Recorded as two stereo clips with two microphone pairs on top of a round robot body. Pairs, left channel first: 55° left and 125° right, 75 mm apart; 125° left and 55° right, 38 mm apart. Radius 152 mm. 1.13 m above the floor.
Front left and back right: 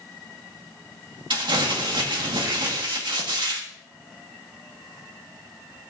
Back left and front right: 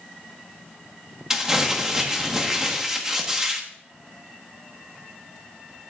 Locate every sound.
1.3 s crumpling: 125° right, 1.7 m